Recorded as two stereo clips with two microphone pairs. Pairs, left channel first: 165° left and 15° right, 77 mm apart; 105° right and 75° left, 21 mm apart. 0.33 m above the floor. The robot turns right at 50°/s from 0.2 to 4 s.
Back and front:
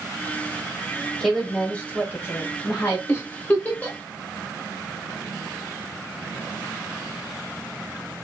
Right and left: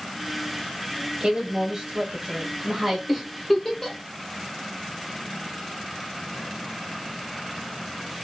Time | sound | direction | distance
1.2 | a woman speaking | 70° left | 1.1 m
3.1 | a giggle | 170° left | 0.7 m